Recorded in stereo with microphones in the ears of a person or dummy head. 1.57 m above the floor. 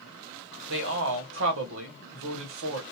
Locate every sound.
0.7 s a man speaking: 75° right (ahead or behind), 1.5 m